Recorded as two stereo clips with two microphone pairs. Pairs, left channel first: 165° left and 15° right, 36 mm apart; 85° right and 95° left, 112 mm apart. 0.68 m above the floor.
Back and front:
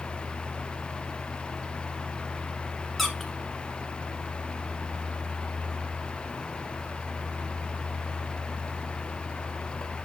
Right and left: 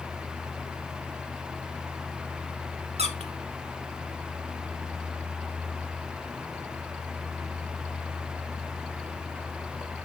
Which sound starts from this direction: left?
A squeak, at 3.0 s.